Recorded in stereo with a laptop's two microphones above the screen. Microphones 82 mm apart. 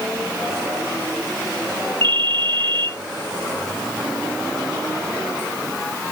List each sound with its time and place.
2.0 s a ringtone: 75° right (ahead or behind), 0.8 m